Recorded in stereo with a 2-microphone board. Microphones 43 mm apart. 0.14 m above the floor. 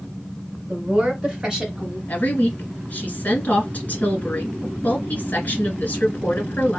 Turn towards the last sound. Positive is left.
turn(degrees=40)  # may be behind; listen again after turning